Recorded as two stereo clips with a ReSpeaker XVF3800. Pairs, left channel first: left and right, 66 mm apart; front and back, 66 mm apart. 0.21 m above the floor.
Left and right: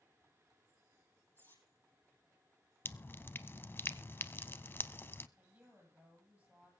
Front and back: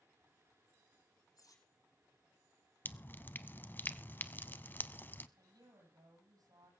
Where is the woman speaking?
165° right, 7 m.